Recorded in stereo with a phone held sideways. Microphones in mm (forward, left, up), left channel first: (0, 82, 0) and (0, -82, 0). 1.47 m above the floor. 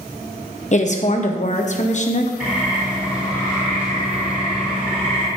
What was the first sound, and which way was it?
A woman speaking, 45° left (ahead or behind).